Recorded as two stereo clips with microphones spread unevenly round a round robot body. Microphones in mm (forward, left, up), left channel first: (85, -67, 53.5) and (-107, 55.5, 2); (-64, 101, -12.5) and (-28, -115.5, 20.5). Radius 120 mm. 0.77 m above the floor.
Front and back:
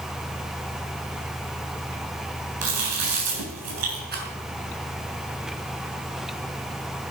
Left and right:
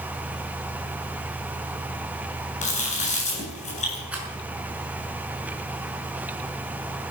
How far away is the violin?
I don't hear a violin.